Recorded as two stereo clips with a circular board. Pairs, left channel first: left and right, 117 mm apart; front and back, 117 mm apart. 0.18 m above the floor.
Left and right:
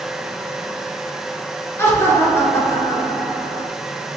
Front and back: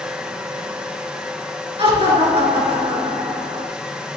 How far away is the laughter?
About 2.5 m.